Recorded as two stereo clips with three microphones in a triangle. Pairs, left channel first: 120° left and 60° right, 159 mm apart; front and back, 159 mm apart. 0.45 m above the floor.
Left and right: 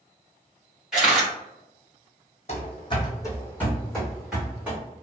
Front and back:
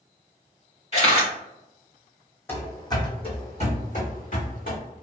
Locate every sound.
0.9 s a camera shutter: 25° left, 1.6 m
2.5 s running footsteps: 75° left, 1.1 m; by 4.8 s 20° left, 1.8 m